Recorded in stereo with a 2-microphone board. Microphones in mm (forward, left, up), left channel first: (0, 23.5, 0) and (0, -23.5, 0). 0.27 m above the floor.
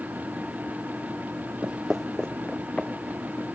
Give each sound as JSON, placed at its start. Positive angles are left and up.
{"t": 1.6, "sound": "footsteps", "side_deg": -35, "distance_m": 0.6}